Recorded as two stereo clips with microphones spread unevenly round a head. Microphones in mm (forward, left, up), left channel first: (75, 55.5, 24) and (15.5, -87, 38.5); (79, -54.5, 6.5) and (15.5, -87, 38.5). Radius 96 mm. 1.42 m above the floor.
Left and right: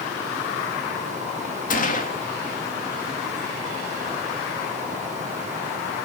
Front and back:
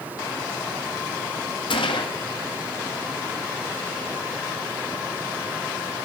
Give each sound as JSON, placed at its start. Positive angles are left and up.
{"t": 1.7, "sound": "a gunshot", "azimuth_deg": 30, "distance_m": 1.7}